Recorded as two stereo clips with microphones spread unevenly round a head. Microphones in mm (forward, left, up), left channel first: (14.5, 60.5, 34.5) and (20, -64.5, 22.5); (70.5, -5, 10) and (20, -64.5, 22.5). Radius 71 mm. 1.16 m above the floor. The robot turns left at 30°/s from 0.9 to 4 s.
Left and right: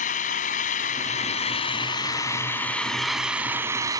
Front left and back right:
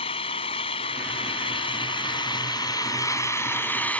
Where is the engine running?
70° left; by 4.0 s 25° right.